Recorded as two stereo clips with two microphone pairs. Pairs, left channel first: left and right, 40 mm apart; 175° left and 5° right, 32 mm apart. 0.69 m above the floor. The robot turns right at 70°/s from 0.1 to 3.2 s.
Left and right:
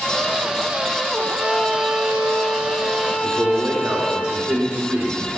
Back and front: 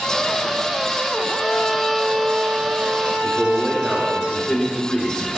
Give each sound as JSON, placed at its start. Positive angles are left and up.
{"t": 1.1, "sound": "a violin", "azimuth_deg": 175, "distance_m": 2.5}
{"t": 3.2, "sound": "a man speaking", "azimuth_deg": -120, "distance_m": 2.0}